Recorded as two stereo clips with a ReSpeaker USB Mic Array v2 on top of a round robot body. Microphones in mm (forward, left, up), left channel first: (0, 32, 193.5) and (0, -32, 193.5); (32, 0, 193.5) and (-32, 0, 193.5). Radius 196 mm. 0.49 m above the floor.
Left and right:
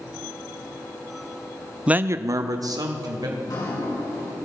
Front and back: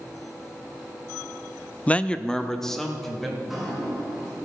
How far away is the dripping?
About 5.5 m.